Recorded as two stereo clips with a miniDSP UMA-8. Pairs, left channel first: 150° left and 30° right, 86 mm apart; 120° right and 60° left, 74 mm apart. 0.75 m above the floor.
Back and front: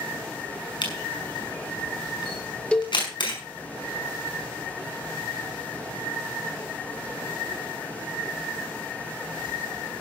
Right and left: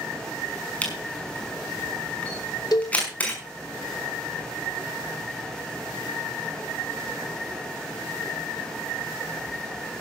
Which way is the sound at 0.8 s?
170° left.